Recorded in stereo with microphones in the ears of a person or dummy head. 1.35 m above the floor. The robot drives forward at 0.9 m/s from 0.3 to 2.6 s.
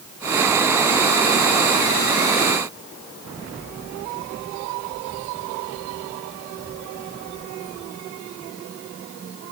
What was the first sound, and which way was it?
Only background noise.